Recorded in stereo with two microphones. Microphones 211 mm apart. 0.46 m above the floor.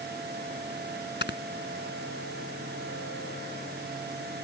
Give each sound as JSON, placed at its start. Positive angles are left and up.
{"t": 1.2, "sound": "snoring", "side_deg": 55}